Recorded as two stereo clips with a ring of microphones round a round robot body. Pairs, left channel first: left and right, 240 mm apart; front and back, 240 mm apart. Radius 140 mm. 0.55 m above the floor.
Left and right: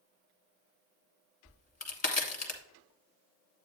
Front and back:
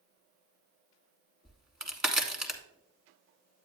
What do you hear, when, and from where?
1.4 s a crack: 95° left, 1.4 m